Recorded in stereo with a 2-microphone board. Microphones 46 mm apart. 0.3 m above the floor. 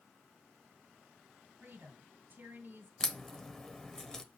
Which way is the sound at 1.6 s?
45° right (ahead or behind).